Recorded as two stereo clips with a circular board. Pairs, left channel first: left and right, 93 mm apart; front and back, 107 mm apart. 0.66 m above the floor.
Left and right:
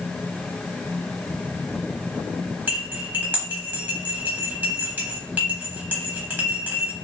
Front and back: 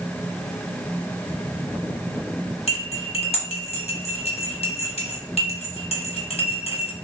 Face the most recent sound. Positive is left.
turn(degrees=-20)